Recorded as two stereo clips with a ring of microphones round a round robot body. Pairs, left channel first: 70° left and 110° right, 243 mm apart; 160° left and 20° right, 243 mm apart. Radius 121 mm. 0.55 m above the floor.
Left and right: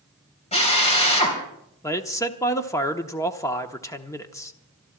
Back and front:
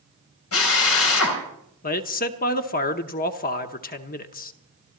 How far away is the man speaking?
About 0.9 m.